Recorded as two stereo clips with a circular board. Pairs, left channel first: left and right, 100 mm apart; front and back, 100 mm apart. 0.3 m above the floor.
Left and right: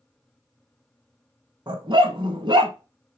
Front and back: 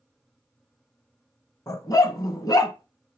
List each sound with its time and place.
1.7 s a dog barking: 50° right, 1.3 m